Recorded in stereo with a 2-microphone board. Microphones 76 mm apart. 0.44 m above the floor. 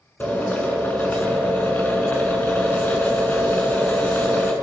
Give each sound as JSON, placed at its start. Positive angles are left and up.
{"t": 0.2, "sound": "a drill", "side_deg": 20, "distance_m": 4.0}